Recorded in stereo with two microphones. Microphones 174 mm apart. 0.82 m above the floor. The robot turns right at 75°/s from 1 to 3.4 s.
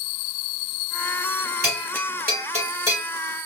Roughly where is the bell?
Right.